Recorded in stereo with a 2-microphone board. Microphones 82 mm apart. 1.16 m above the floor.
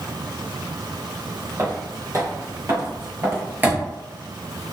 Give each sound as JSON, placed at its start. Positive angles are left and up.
{"t": 1.6, "sound": "footsteps", "side_deg": -35, "distance_m": 2.0}